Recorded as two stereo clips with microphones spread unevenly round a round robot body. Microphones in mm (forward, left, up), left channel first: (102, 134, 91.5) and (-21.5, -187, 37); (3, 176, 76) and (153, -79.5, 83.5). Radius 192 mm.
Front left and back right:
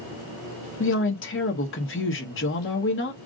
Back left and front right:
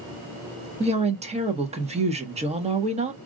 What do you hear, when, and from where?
0.8 s a woman speaking: 10° left, 1.2 m